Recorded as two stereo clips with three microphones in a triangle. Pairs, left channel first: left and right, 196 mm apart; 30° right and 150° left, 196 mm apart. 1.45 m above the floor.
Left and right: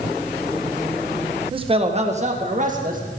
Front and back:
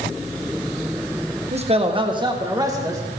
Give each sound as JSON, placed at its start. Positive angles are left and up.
{"t": 1.5, "sound": "a man speaking", "azimuth_deg": -155, "distance_m": 1.3}